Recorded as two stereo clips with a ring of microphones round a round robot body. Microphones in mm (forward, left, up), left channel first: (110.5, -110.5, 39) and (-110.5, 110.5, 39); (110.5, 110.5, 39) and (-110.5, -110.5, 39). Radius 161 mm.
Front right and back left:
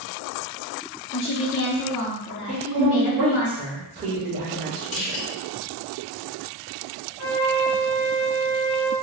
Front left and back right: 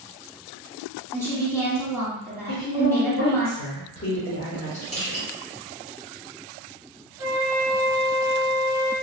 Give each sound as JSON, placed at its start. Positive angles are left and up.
{"t": 1.1, "sound": "a woman speaking", "azimuth_deg": -35, "distance_m": 1.3}
{"t": 2.5, "sound": "a woman speaking", "azimuth_deg": 85, "distance_m": 1.2}
{"t": 4.9, "sound": "crushing", "azimuth_deg": -25, "distance_m": 1.7}
{"t": 7.2, "sound": "a flute", "azimuth_deg": -50, "distance_m": 1.2}